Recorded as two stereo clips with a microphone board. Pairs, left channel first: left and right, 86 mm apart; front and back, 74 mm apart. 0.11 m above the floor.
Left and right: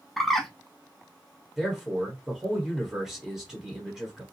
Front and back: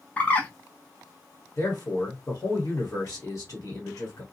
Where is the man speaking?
5° right, 1.5 m.